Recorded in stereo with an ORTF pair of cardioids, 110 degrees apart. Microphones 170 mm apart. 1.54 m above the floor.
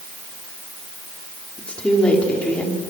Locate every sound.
1.6 s a woman speaking: 5° left, 5 m